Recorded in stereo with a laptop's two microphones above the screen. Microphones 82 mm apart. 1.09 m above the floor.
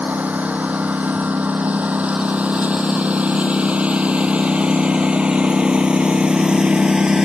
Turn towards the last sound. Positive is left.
turn(degrees=-10)  # may be behind; listen again after turning